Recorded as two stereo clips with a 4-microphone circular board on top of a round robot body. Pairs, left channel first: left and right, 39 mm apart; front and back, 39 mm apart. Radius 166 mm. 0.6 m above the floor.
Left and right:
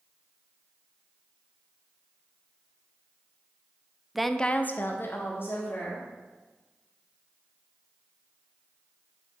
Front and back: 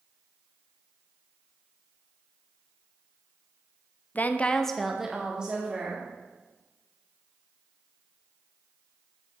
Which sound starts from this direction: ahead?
A woman speaking, at 4.2 s.